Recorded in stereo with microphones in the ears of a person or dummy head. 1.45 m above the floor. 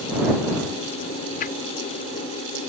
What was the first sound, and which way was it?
A whoosh, 45° left (ahead or behind).